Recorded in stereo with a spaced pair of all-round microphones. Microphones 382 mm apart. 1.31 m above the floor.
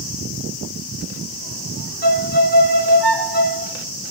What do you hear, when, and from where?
2.0 s a violin: 65° right (ahead or behind), 1.1 m